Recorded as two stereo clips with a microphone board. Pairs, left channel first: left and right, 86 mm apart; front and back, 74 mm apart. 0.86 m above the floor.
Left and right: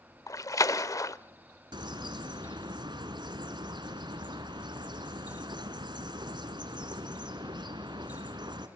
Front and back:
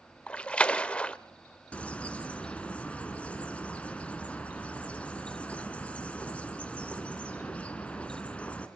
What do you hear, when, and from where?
0.3 s a splash: 65° left, 0.7 m
1.7 s a bird: 75° right, 1.9 m